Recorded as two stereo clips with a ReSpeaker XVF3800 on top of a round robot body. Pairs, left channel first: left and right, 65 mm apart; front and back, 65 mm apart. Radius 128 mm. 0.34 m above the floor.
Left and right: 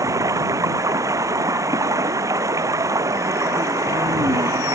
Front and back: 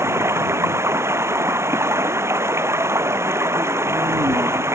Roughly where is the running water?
Behind right.